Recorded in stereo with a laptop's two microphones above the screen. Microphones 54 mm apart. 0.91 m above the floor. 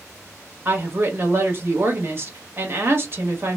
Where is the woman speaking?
45° right (ahead or behind), 1.3 m.